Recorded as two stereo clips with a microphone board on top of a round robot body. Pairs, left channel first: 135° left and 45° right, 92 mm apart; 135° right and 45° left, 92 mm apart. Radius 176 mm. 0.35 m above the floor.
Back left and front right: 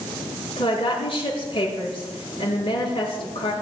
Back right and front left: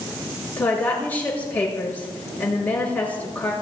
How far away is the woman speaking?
About 7.5 m.